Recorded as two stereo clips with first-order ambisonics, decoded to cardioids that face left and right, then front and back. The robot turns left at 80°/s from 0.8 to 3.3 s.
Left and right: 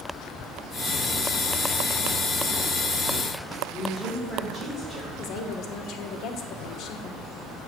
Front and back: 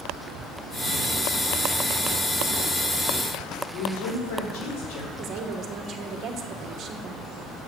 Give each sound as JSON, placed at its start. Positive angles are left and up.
{"t": 3.7, "sound": "a woman speaking", "azimuth_deg": 15, "distance_m": 3.5}
{"t": 5.2, "sound": "a woman speaking", "azimuth_deg": 130, "distance_m": 1.0}